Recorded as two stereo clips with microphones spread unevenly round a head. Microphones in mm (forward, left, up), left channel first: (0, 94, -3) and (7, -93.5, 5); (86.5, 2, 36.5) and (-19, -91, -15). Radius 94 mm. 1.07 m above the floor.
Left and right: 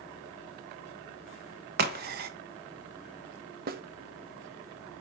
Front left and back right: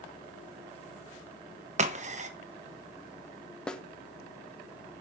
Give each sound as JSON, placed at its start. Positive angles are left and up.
{"t": 1.8, "sound": "a crack", "azimuth_deg": -130, "distance_m": 1.1}
{"t": 3.7, "sound": "a snare drum", "azimuth_deg": -55, "distance_m": 0.9}